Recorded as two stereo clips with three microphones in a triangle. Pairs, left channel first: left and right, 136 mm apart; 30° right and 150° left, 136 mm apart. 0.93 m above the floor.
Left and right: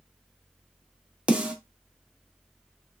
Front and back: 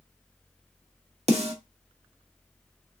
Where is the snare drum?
170° right, 0.9 m.